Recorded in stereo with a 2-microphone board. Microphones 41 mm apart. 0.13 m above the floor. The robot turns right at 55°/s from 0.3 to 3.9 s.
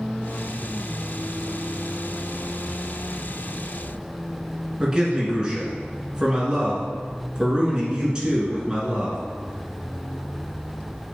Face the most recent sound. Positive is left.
turn(degrees=-20)  # may be behind; listen again after turning